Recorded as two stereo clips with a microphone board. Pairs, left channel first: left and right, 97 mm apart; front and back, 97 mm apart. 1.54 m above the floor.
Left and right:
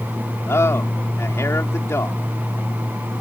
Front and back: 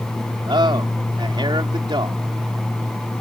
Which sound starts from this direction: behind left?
A man speaking, at 0.5 s.